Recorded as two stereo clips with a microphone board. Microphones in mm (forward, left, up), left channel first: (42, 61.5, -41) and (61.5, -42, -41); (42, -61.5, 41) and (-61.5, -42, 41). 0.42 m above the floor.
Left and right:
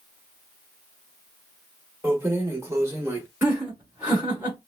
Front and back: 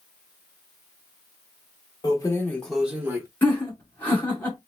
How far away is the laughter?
About 1.4 m.